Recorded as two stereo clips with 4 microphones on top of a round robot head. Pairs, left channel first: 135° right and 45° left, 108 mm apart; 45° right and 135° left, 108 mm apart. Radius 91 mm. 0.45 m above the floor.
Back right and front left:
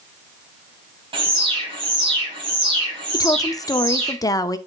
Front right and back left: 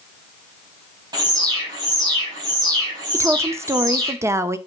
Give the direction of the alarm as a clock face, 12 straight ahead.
9 o'clock.